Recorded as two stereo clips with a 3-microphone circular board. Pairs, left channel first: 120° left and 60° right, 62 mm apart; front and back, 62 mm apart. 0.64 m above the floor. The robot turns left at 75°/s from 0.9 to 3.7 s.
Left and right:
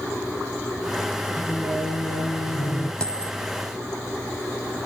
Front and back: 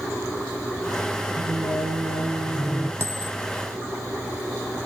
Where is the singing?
175° right, 8.5 m; by 2.9 s 65° left, 8.5 m.